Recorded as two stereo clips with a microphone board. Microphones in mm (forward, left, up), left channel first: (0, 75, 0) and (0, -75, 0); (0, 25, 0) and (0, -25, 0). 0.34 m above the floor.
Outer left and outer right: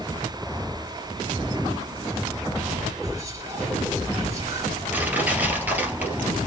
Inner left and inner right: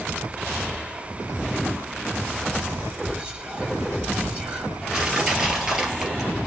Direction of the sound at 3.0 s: 20° right (ahead or behind).